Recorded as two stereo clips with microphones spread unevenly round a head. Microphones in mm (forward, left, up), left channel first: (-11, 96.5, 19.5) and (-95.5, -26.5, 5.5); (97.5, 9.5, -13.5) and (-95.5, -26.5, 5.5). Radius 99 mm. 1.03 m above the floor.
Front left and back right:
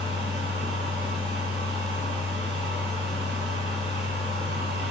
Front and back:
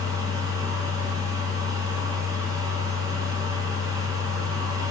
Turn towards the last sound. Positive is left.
turn(degrees=-100)